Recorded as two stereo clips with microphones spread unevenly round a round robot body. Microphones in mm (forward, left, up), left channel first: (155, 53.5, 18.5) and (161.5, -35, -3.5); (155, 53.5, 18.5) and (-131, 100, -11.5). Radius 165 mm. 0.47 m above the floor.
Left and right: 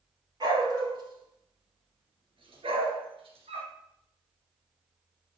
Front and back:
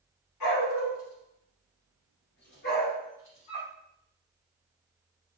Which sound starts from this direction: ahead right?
A dog barking, at 0.4 s.